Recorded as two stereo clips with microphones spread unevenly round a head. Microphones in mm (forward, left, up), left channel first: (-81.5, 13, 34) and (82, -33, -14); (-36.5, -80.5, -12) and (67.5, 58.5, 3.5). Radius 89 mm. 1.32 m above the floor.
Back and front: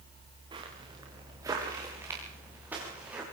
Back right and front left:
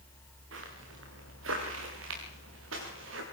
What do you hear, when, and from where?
0.5 s footsteps: 50° left, 7.5 m; by 3.2 s 70° left, 10.5 m